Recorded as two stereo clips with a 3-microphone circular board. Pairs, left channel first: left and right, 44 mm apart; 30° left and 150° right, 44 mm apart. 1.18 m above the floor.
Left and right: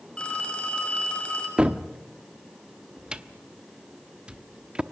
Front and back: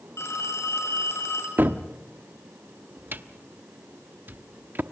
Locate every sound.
0.2 s a phone ringing: 20° left, 6 m
1.6 s a cupboard door: 155° right, 0.8 m